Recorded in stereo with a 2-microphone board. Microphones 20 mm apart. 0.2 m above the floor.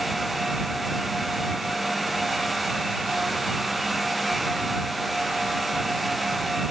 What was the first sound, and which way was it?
Only background noise.